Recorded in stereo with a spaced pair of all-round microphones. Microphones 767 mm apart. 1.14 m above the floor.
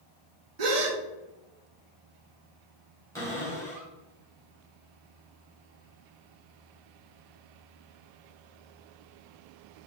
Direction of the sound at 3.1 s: 5° left (ahead or behind).